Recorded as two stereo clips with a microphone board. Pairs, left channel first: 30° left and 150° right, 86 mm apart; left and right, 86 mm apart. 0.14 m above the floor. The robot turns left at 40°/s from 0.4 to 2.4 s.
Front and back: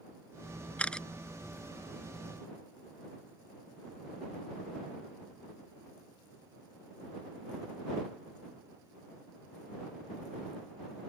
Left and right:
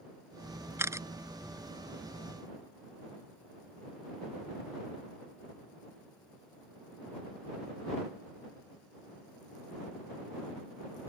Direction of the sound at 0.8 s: 40° right.